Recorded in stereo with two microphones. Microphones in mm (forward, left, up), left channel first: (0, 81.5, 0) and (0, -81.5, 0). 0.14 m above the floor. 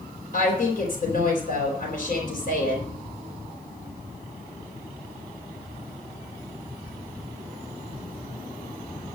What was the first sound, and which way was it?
A woman speaking, 65° left (ahead or behind).